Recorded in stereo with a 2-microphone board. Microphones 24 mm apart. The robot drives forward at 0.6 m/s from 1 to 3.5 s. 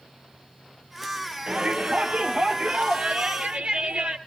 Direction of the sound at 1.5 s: 55° right (ahead or behind).